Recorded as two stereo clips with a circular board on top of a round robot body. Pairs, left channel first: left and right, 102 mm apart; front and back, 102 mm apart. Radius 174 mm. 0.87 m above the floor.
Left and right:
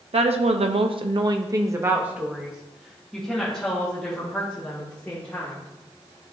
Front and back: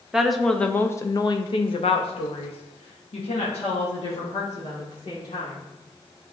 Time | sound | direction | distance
0.1 | a woman speaking | 95° right | 0.9 m